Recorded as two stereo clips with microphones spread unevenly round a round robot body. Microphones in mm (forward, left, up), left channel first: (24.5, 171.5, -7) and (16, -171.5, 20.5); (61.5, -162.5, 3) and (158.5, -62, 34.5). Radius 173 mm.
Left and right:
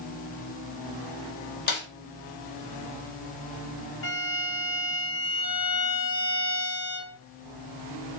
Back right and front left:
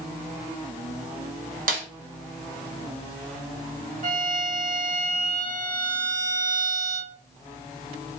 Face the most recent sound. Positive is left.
turn(degrees=55)